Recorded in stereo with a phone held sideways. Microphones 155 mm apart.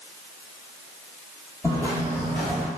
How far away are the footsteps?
About 1.5 m.